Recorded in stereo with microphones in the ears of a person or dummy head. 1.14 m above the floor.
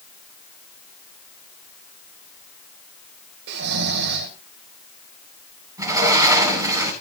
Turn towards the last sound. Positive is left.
turn(degrees=-15)  # may be behind; listen again after turning